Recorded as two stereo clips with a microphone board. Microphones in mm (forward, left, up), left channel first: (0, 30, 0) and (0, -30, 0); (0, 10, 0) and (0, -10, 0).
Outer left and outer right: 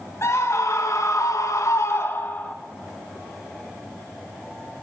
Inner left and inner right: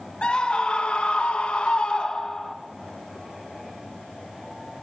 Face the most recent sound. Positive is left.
turn(degrees=35)  # may be behind; listen again after turning